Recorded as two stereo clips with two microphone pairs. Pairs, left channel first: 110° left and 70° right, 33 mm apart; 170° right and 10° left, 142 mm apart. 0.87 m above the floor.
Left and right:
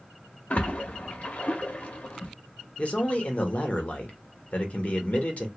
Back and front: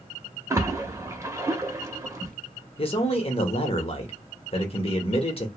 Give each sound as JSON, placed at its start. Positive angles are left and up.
{"t": 0.5, "sound": "a splash", "azimuth_deg": 75, "distance_m": 0.6}
{"t": 2.8, "sound": "a man speaking", "azimuth_deg": 150, "distance_m": 0.8}